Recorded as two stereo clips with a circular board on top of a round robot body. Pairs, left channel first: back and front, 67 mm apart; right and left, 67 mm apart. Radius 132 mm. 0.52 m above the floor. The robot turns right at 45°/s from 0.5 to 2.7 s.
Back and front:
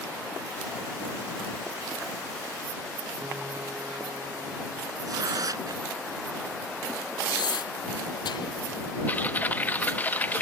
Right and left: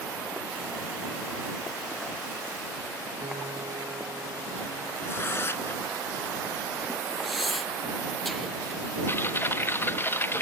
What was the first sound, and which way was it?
A piano, 65° left.